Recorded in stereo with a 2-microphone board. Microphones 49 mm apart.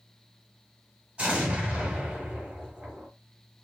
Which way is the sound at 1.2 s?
20° right (ahead or behind).